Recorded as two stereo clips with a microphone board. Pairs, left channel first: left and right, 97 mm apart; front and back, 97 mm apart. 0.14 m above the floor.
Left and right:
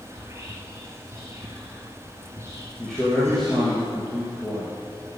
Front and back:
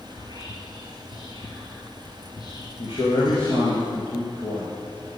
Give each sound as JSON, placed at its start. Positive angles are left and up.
{"t": 0.1, "sound": "whispering", "azimuth_deg": -35, "distance_m": 2.0}
{"t": 2.8, "sound": "a man speaking", "azimuth_deg": 5, "distance_m": 3.5}